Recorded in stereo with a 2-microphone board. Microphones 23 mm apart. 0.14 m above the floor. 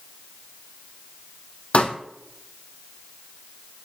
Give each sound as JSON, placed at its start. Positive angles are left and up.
{"t": 1.7, "sound": "a pop", "side_deg": 60, "distance_m": 1.7}